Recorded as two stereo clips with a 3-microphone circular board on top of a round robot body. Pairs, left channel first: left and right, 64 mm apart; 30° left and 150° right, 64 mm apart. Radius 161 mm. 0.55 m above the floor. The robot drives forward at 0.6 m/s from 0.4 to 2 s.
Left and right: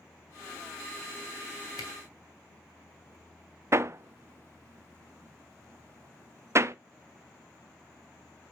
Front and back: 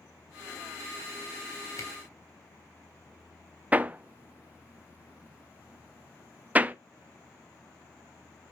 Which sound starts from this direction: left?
A camera shutter, at 1.8 s.